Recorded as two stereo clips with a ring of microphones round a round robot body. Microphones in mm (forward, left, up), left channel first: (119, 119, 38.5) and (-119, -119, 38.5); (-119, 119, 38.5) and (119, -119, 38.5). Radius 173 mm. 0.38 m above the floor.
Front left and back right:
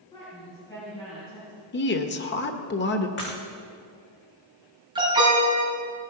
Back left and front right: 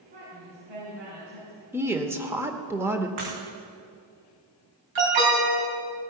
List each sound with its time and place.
0.1 s a woman speaking: 35° right, 4 m
1.7 s a woman speaking: 30° left, 1.0 m
3.2 s breaking glass: 15° right, 5.5 m
5.0 s an alarm: 60° right, 4 m